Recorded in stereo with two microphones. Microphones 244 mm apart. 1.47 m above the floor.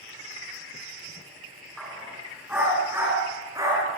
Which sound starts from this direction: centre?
A dog barking, at 1.8 s.